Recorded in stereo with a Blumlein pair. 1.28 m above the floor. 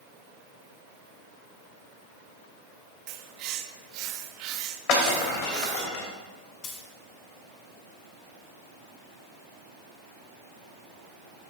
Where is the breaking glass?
45° left, 2.5 m.